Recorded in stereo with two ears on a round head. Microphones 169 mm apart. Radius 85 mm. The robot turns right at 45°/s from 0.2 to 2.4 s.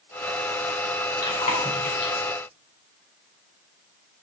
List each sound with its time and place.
1.2 s chewing: 20° left (ahead or behind), 3 m; by 2.2 s 70° left (ahead or behind), 3 m